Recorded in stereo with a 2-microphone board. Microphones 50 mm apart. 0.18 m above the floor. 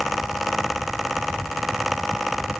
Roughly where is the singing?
No singing in this recording.